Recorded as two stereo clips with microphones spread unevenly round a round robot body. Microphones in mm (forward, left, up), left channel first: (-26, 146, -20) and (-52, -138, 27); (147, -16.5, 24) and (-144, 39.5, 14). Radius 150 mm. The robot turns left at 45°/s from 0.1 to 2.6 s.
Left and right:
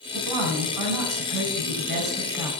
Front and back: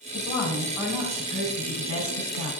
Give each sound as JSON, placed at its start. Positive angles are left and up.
{"t": 0.1, "sound": "a woman speaking", "azimuth_deg": -80, "distance_m": 3.5}